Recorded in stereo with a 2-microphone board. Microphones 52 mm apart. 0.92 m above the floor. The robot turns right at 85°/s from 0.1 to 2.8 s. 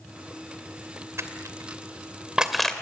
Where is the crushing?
60° right (ahead or behind), 2 m; by 2.7 s 15° left (ahead or behind), 2 m.